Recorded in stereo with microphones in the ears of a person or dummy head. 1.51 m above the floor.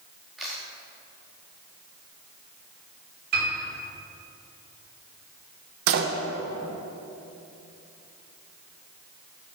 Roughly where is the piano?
Right.